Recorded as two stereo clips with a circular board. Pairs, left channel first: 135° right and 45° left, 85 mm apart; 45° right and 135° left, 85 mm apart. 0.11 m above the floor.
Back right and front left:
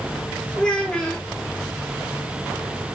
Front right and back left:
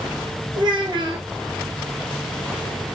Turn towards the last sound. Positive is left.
turn(degrees=145)